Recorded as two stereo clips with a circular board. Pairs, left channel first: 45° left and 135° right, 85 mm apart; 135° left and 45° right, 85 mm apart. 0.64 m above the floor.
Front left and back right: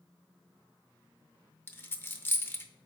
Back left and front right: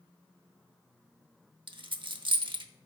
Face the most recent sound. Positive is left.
turn(degrees=-20)